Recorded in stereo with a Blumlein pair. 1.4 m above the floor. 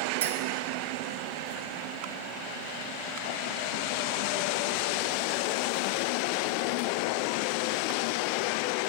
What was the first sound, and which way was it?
A clink, 55° right.